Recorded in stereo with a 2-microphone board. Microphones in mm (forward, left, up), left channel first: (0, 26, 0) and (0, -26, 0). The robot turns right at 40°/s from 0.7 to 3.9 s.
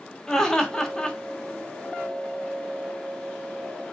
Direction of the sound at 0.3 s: 10° left (ahead or behind).